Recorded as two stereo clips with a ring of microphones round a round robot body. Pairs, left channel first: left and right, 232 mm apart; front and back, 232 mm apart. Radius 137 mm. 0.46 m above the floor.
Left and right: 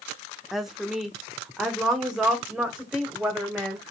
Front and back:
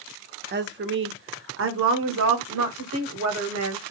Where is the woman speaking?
Straight behind, 1.1 m; by 3.9 s 175° right, 2.5 m.